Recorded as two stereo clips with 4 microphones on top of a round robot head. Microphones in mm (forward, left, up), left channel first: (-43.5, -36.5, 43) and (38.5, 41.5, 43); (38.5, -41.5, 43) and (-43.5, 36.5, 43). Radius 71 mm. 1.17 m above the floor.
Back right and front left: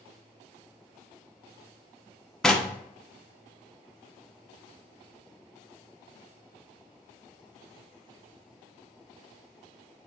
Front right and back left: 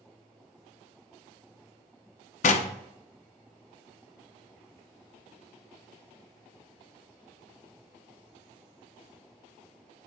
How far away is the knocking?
About 0.5 m.